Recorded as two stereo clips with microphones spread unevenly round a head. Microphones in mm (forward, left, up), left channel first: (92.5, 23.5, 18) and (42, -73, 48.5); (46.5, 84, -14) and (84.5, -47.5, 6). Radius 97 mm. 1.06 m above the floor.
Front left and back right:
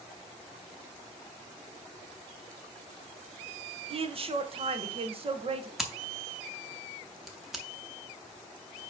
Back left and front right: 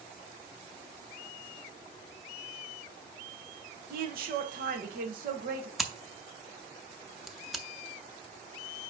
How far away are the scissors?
About 0.5 m.